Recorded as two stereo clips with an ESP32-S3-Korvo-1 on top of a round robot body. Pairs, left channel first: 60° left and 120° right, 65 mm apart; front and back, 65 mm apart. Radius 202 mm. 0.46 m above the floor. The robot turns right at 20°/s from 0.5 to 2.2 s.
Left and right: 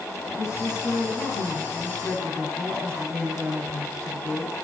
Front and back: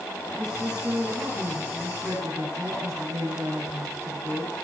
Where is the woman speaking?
100° left, 8.5 m; by 4.5 s 130° left, 8.5 m.